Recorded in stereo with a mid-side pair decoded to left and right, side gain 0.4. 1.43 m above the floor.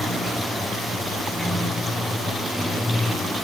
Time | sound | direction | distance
0.0 | running water | 5° left | 5.5 m